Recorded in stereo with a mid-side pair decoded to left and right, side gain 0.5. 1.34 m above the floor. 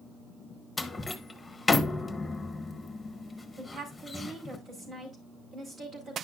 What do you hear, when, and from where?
0.8 s a door slam: 15° left, 1.2 m
3.6 s a woman speaking: 50° right, 5 m